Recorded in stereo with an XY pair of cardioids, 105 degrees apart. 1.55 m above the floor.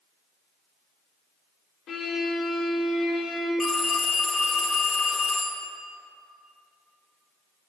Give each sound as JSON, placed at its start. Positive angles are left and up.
{"t": 1.9, "sound": "a violin", "azimuth_deg": 65, "distance_m": 3.0}
{"t": 3.6, "sound": "a phone ringing", "azimuth_deg": 35, "distance_m": 1.8}